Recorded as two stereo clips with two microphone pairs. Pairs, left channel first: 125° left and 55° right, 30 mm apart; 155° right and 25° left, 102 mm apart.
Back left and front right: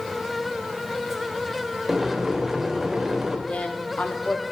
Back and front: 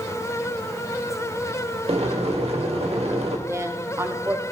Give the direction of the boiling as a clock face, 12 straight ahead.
11 o'clock.